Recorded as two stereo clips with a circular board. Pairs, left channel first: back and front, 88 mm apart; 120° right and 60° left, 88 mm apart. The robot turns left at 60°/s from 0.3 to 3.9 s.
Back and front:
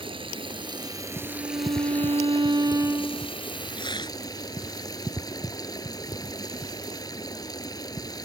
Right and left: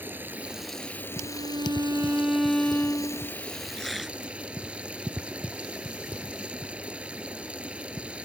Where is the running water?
10° right; by 8.2 s 135° left.